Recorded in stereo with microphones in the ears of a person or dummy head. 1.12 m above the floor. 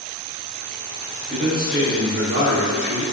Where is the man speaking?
50° right (ahead or behind), 1.4 m; by 3.0 s 85° right, 1.8 m.